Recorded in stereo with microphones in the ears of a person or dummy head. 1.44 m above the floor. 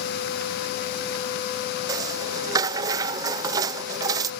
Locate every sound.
1.9 s a rattle: 25° right (ahead or behind)